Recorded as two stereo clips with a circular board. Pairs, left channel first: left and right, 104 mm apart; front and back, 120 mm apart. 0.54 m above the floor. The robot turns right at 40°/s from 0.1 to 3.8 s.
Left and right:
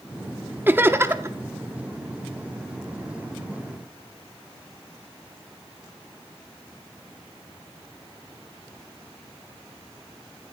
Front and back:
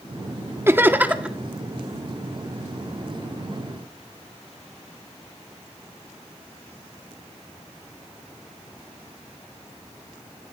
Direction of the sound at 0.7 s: 135° right.